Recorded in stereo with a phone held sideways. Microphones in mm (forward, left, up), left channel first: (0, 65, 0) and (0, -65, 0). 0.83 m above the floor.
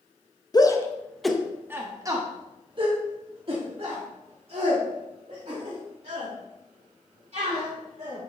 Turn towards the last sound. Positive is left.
turn(degrees=-55)  # may be behind; listen again after turning